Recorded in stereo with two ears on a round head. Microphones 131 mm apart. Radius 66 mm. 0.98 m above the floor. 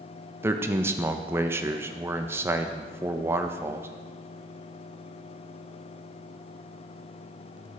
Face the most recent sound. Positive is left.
turn(degrees=-15)  # may be behind; listen again after turning